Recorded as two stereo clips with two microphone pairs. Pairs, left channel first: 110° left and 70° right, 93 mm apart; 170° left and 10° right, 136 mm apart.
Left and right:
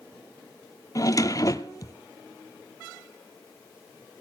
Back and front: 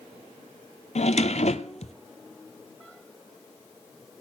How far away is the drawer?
About 0.7 m.